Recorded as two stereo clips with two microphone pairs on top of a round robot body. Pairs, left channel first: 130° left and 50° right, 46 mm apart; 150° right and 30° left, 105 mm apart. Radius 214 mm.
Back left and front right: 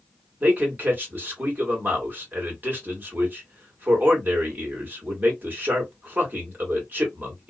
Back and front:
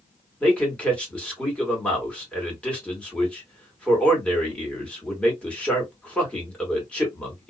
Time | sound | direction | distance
0.4 | a man speaking | 75° right | 2 m